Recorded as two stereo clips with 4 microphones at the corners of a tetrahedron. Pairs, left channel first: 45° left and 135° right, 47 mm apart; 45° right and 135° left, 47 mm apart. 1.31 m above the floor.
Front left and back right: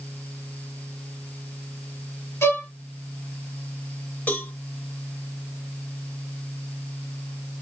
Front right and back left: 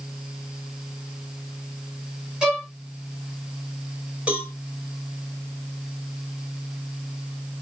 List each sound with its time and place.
2.4 s a violin: 60° left, 2 m
4.3 s a cowbell: 80° left, 1.8 m